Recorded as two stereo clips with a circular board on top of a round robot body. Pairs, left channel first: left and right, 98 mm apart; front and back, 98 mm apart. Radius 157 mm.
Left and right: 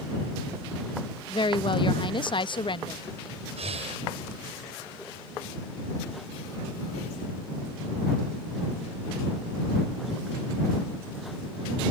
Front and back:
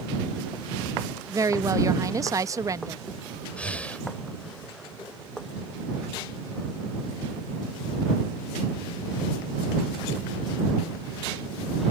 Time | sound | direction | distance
1.3 | a woman speaking | 125° left | ?
3.6 | breathing | 80° right | ?